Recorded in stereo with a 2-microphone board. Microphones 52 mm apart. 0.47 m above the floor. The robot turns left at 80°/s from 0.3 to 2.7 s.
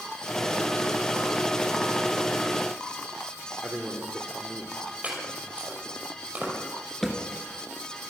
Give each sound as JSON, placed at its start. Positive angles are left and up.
{"t": 3.6, "sound": "a man speaking", "side_deg": -40, "distance_m": 1.3}
{"t": 5.0, "sound": "chopping", "side_deg": -25, "distance_m": 5.5}
{"t": 7.0, "sound": "a thud", "side_deg": 5, "distance_m": 1.9}